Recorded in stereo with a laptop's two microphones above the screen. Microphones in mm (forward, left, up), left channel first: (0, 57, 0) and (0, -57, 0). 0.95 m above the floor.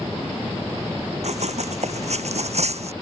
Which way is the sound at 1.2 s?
75° right (ahead or behind).